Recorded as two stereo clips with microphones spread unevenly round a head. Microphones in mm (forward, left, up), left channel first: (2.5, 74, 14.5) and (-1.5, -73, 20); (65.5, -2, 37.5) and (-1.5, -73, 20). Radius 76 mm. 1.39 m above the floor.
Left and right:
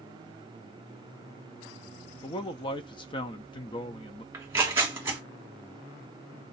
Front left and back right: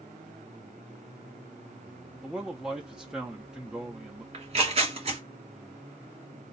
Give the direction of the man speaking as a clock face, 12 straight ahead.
7 o'clock.